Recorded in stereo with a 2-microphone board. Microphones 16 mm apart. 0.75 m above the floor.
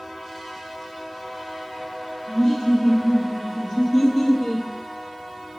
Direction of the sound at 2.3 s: 60° left (ahead or behind).